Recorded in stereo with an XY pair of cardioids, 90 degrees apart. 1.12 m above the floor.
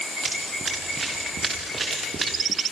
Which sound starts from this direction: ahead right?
Running footsteps, at 0.2 s.